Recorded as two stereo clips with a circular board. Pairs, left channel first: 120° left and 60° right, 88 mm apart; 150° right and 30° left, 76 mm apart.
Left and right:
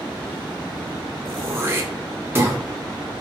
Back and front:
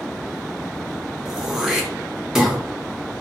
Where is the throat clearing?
45° right, 0.8 m.